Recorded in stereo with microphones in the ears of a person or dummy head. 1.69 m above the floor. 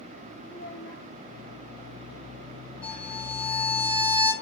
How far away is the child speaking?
About 2 m.